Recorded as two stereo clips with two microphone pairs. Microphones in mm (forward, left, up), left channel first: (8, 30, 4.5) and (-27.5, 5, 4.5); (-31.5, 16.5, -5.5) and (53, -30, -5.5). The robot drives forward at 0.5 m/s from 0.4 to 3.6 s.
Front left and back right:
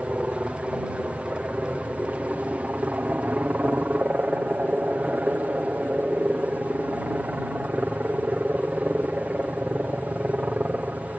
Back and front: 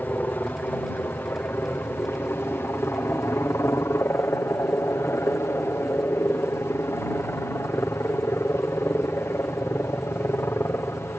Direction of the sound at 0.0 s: 160° right.